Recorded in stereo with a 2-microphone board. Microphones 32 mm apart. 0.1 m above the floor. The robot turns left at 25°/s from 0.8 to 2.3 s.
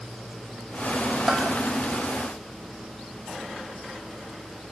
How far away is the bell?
About 3 m.